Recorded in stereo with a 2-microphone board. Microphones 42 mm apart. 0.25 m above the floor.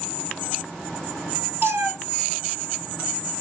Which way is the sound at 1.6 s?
80° right.